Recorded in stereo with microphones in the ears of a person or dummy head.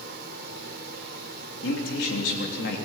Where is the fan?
65° right (ahead or behind), 2 m.